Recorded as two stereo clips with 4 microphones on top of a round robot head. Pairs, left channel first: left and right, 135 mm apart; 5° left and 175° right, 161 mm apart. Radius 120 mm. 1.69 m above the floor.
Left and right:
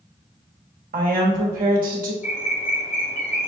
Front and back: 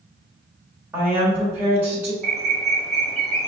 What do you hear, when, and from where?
0.9 s a woman speaking: 95° right, 1.1 m
2.2 s a bird: 95° left, 0.7 m